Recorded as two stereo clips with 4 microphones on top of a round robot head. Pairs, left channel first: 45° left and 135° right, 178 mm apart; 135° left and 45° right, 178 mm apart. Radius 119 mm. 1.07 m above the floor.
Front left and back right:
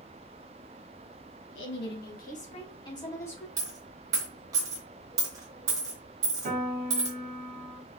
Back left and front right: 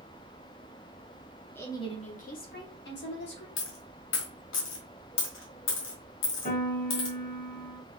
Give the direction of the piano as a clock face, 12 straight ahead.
6 o'clock.